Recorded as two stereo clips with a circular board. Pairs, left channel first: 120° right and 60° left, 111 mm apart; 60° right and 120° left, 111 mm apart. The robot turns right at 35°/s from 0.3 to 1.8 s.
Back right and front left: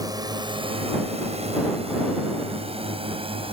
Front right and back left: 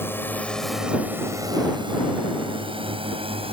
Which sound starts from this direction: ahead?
A drone, at 0.0 s.